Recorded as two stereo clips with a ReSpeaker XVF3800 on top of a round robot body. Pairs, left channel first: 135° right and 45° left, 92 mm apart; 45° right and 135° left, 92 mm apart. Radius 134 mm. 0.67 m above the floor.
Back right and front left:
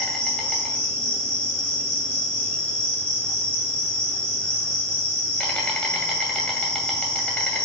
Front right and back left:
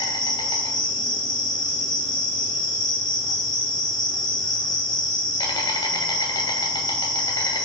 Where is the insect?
60° right, 2 m.